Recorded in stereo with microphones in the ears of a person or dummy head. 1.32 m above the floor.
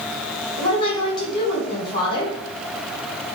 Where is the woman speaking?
20° left (ahead or behind), 0.9 m.